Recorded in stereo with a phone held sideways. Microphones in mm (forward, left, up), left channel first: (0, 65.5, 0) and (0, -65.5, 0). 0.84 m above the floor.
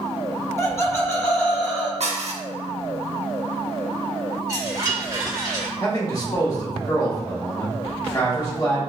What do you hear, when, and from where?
0.6 s laughter: 25° left (ahead or behind), 1.3 m; by 1.9 s 20° left (ahead or behind), 2 m
2.0 s dishes clattering: 65° right (ahead or behind), 0.9 m
4.5 s a chime: 30° right (ahead or behind), 2.0 m
5.8 s a man speaking: 30° left (ahead or behind), 1.7 m